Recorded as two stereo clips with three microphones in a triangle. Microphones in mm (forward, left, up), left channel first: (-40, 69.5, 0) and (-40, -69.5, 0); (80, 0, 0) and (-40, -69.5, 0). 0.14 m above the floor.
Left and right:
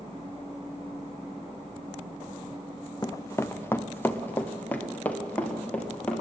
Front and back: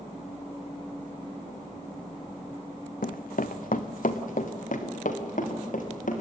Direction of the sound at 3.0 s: 30° left.